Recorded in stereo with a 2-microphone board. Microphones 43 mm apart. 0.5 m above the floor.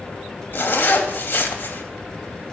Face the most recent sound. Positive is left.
turn(degrees=50)  # may be behind; listen again after turning